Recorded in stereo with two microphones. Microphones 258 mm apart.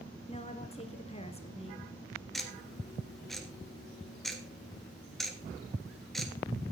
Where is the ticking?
Centre (ahead or behind), 1.6 m.